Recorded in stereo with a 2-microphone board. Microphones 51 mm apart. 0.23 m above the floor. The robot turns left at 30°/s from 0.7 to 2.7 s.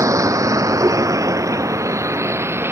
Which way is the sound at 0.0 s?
75° right (ahead or behind).